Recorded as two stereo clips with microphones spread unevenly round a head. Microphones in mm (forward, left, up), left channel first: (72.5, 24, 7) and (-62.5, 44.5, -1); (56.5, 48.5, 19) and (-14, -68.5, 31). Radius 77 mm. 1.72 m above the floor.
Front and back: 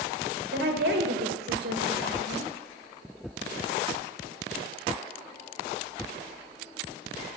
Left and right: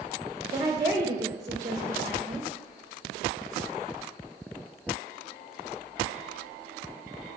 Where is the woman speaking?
170° left, 2 m.